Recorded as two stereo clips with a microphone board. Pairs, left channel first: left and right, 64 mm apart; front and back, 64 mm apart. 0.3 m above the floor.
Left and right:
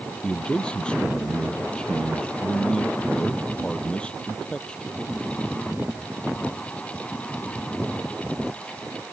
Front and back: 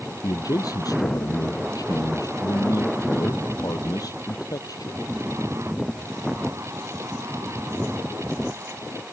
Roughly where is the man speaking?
Ahead.